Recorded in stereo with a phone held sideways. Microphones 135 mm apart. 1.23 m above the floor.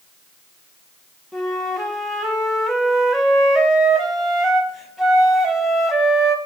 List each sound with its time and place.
1.3 s a flute: centre (ahead or behind), 1.0 m